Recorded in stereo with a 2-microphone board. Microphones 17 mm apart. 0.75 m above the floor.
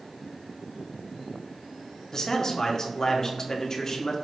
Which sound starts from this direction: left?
A man speaking, at 2.1 s.